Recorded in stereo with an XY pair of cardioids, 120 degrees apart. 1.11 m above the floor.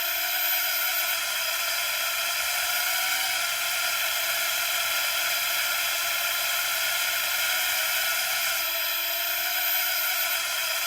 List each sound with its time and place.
0.0 s a drone: straight ahead